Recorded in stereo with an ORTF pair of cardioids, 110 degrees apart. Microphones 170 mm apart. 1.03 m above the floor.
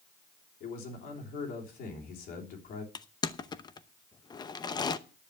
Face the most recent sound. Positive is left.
turn(degrees=25)